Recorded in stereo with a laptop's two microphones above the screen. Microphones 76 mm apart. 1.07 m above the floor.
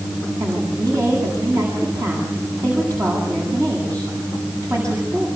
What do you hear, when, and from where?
0.4 s a woman speaking: 50° right (ahead or behind), 9 m